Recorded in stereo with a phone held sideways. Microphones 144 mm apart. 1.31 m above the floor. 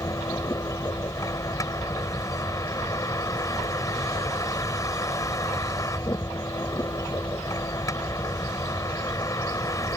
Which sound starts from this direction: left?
A vehicle, at 0.0 s.